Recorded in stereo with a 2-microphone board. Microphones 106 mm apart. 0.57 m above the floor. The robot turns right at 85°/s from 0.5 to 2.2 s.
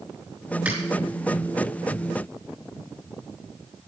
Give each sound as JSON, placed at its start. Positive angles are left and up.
{"t": 0.7, "sound": "a finger snap", "side_deg": -10, "distance_m": 6.5}